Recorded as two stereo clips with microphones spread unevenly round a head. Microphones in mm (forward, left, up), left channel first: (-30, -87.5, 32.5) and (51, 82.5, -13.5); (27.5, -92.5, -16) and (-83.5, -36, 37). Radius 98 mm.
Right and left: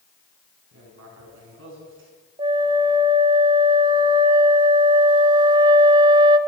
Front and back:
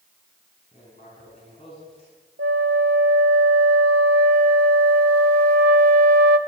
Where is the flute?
130° left, 1.0 m.